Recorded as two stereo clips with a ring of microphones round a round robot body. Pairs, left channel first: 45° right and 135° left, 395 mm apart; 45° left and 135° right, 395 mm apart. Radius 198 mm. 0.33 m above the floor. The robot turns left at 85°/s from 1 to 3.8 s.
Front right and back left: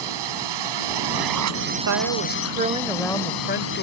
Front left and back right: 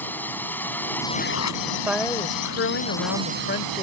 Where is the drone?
130° left; by 3.8 s 110° right.